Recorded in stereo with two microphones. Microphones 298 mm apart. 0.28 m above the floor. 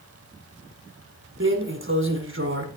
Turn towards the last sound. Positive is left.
turn(degrees=-40)  # may be behind; listen again after turning